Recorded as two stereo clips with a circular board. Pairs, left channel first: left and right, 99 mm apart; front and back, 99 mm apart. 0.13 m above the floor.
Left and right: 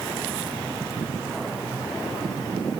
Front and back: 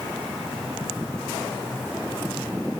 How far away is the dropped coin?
I don't hear a dropped coin.